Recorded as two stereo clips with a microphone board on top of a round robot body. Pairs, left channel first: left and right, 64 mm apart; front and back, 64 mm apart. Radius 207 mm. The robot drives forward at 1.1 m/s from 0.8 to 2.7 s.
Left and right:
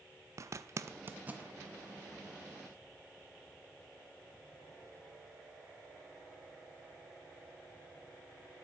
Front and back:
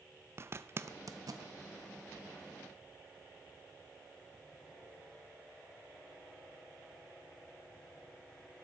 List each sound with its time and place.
0.4 s a zipper: 130° right, 0.6 m; by 1.5 s 160° right, 1.2 m